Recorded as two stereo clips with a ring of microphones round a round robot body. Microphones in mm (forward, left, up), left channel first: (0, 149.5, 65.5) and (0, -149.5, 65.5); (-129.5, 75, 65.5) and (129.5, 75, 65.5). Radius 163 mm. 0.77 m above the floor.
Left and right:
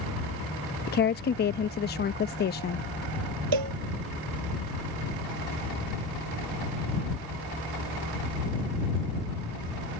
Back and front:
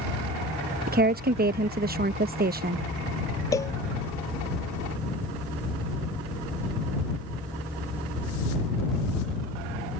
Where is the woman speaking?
45° left.